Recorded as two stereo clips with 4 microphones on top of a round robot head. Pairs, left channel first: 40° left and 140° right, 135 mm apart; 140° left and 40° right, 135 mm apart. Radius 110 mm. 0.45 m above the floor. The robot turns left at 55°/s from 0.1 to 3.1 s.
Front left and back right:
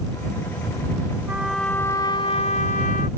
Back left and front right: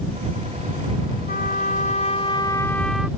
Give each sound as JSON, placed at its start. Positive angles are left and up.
{"t": 1.3, "sound": "a trumpet", "azimuth_deg": 145}